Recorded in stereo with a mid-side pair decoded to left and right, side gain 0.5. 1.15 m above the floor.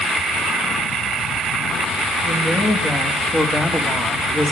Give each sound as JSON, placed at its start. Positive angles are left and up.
{"t": 2.2, "sound": "a woman speaking", "azimuth_deg": 40, "distance_m": 2.0}